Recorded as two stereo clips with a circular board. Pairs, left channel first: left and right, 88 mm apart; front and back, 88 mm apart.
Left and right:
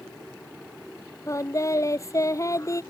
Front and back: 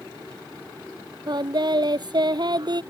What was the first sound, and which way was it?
Singing, 145° left.